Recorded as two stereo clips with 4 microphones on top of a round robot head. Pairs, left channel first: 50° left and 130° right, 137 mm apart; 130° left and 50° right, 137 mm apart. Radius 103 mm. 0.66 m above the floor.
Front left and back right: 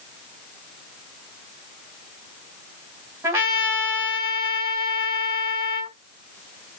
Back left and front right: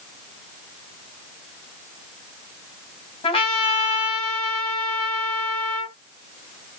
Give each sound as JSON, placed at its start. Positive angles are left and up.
{"t": 3.2, "sound": "a trumpet", "azimuth_deg": 160, "distance_m": 1.5}